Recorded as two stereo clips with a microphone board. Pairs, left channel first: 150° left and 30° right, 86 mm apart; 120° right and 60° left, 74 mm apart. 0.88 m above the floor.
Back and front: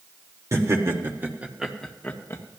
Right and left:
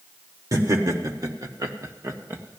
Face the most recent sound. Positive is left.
turn(degrees=115)